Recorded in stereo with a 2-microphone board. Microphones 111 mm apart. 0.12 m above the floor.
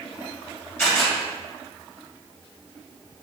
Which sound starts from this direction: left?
A camera shutter, at 0.8 s.